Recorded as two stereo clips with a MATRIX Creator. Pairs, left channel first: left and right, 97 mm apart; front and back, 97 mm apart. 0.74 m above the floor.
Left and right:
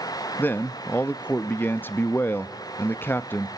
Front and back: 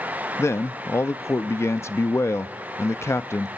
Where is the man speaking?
40° left, 0.5 m.